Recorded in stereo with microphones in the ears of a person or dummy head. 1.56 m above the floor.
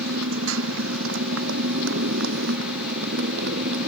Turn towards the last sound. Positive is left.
turn(degrees=-60)  # may be behind; listen again after turning